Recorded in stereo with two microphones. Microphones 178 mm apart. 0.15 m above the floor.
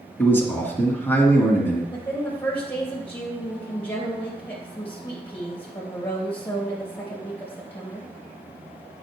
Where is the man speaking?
15° left (ahead or behind), 1.6 m.